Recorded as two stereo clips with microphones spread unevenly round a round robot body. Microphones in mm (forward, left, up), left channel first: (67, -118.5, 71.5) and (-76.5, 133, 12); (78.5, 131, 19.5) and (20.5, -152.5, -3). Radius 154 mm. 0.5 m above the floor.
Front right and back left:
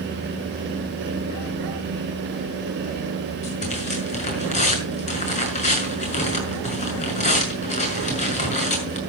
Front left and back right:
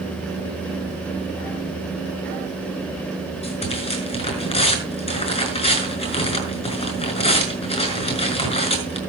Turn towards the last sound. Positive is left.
turn(degrees=10)